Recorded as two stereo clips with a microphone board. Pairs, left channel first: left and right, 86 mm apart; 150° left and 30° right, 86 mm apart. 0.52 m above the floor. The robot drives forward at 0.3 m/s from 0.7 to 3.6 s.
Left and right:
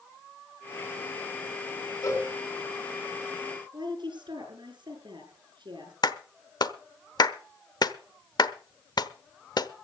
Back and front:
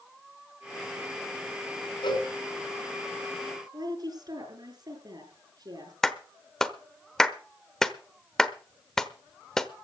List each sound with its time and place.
2.0 s a cowbell: 135° left, 3 m; by 2.3 s 140° left, 3 m
3.7 s a woman speaking: 65° right, 7 m
6.0 s a clap: 65° left, 1.0 m